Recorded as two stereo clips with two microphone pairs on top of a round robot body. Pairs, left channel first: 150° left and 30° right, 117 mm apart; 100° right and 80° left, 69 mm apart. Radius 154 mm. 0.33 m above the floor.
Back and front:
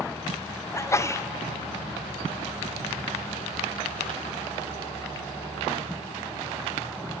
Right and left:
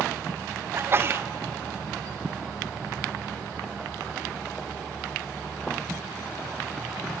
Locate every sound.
0.7 s a sneeze: 100° left, 1.1 m